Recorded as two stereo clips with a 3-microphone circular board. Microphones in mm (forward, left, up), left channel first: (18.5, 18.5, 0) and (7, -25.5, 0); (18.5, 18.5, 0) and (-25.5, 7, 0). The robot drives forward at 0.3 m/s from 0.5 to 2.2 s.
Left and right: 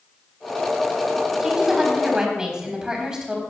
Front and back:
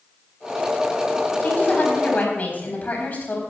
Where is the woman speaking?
25° right, 4 m; by 3.4 s 30° right, 3.5 m.